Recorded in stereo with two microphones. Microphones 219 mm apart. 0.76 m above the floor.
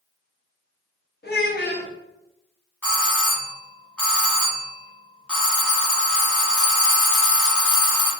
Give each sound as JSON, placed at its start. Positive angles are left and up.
{"t": 1.2, "sound": "a child speaking", "side_deg": 50, "distance_m": 0.9}
{"t": 2.8, "sound": "a doorbell", "side_deg": 5, "distance_m": 1.4}